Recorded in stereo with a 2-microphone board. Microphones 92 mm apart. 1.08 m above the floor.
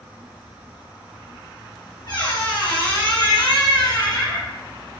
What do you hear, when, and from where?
2.1 s a squeak: 50° left (ahead or behind), 1.2 m